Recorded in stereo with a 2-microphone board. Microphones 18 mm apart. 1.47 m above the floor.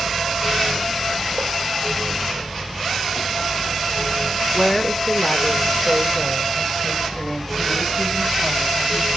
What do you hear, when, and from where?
4.5 s a woman speaking: 15° left (ahead or behind), 3 m